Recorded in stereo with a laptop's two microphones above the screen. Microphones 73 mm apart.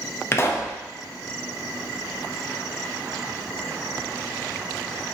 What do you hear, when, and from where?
0.3 s a pop: 35° left (ahead or behind), 0.6 m